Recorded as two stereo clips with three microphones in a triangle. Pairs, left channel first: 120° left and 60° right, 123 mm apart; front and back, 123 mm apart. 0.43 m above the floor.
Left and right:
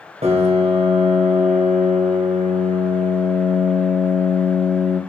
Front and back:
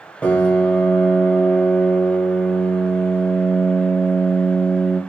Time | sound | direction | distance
0.2 | a piano | 80° right | 0.6 m